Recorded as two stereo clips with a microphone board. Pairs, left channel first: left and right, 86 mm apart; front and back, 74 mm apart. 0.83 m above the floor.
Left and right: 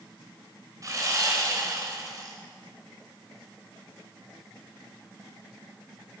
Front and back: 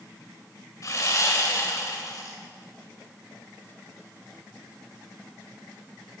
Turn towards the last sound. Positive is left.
turn(degrees=-40)